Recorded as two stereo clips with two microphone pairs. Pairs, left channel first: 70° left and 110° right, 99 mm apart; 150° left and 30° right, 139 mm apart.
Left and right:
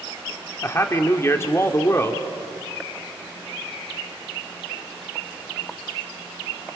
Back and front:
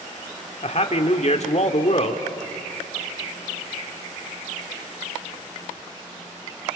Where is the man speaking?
130° left, 1.4 m.